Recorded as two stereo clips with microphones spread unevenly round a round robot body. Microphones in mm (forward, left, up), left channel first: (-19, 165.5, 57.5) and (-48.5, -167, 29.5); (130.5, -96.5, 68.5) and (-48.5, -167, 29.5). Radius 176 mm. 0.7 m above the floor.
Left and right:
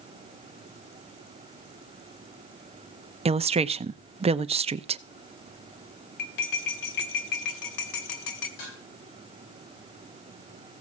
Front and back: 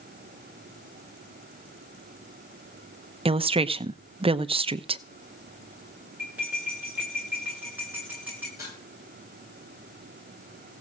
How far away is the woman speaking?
About 0.6 m.